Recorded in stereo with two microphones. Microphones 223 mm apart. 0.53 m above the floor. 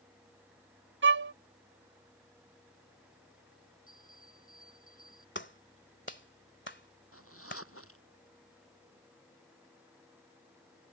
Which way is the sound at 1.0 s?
60° right (ahead or behind).